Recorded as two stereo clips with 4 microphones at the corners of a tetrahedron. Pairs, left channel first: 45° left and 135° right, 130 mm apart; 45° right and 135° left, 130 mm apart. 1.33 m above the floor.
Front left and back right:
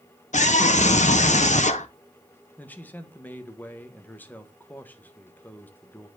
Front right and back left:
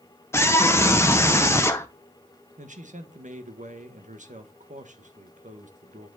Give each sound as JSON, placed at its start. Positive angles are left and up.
{"t": 0.3, "sound": "a scream", "azimuth_deg": 25, "distance_m": 0.7}
{"t": 2.6, "sound": "a man speaking", "azimuth_deg": 120, "distance_m": 1.4}